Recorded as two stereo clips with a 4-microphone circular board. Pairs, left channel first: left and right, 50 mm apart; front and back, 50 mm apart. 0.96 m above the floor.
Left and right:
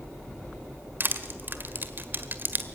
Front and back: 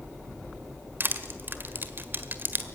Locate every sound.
1.0 s crushing: 135° right, 1.4 m